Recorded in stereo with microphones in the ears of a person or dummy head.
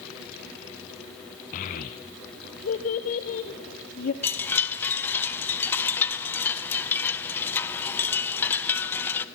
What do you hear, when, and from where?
1.5 s a child speaking: 40° left (ahead or behind), 0.6 m
4.2 s a chime: 10° left (ahead or behind), 0.6 m